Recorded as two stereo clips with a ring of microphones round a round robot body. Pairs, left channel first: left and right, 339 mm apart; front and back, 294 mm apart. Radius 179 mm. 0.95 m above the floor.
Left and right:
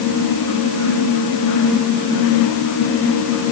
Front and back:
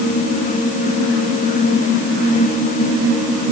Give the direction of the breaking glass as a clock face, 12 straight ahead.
No breaking glass in this recording.